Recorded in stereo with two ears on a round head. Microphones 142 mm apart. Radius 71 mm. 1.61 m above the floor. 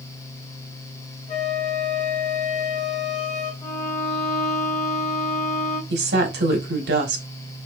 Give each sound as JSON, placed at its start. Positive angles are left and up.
{"t": 1.3, "sound": "a flute", "side_deg": 40, "distance_m": 2.5}
{"t": 3.6, "sound": "a violin", "side_deg": 20, "distance_m": 2.0}
{"t": 5.9, "sound": "a woman speaking", "side_deg": -75, "distance_m": 1.8}